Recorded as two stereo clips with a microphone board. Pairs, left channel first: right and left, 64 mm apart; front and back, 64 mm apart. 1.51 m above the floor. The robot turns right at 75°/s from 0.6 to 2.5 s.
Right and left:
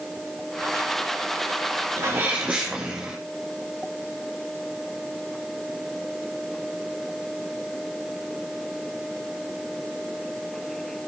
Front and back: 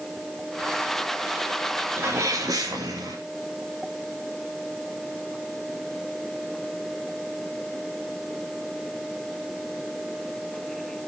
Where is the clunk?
I don't hear a clunk.